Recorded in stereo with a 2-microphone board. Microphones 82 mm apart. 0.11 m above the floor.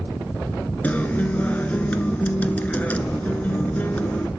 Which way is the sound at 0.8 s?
20° left (ahead or behind).